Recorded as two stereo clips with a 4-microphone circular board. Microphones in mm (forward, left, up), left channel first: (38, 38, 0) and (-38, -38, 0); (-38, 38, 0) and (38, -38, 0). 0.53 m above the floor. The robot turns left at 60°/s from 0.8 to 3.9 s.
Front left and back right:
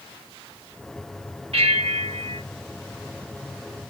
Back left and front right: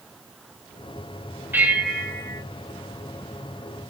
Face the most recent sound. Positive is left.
turn(degrees=100)